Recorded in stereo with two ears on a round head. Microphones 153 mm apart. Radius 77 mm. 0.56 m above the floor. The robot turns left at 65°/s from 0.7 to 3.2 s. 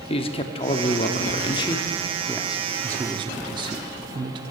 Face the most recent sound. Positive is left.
turn(degrees=-50)